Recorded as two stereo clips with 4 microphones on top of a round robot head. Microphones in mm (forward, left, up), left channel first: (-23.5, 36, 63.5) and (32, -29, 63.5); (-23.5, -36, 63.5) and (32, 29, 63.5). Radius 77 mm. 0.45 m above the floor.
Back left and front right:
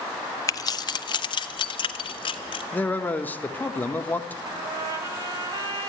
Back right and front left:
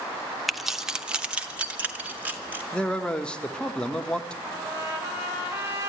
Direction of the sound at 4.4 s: 10° right.